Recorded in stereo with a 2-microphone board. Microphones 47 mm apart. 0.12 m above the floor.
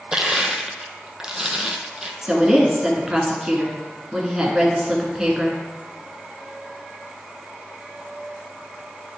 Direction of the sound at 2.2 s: 15° right (ahead or behind).